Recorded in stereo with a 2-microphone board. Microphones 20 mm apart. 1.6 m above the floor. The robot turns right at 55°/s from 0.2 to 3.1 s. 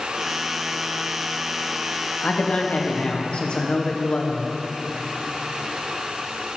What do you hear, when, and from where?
2.2 s a man speaking: 75° left, 1.0 m; by 4.5 s 120° left, 1.0 m